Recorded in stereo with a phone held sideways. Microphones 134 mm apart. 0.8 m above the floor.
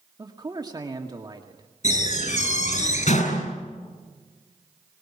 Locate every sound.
0.2 s a man speaking: 30° right (ahead or behind), 2 m
1.8 s a door slam: 65° left (ahead or behind), 7 m